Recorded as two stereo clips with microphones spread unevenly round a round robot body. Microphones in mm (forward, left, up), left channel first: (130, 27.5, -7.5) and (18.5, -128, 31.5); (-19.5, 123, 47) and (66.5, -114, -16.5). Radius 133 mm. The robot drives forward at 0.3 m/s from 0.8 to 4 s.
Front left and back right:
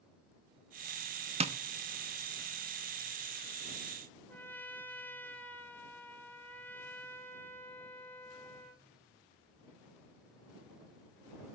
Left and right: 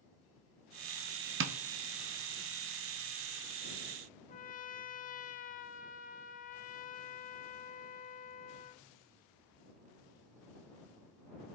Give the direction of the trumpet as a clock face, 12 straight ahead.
10 o'clock.